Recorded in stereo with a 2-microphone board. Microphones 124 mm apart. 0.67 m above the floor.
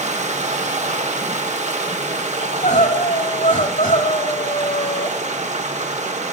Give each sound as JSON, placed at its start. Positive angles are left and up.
{"t": 0.0, "sound": "running water", "side_deg": -65, "distance_m": 1.4}
{"t": 2.4, "sound": "crying", "side_deg": 90, "distance_m": 1.7}